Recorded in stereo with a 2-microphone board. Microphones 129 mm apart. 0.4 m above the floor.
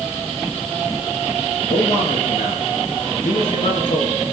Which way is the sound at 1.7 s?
75° left (ahead or behind).